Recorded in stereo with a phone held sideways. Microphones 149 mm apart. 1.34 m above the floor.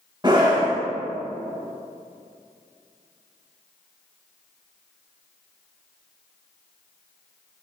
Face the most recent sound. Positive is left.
turn(degrees=-30)  # may be behind; listen again after turning